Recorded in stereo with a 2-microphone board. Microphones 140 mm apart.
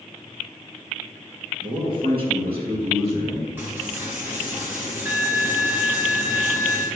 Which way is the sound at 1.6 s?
35° right (ahead or behind).